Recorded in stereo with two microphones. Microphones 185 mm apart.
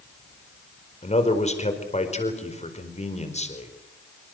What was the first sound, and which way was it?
A man speaking, 35° left (ahead or behind).